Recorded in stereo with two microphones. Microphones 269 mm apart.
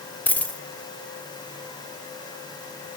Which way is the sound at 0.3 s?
5° left (ahead or behind).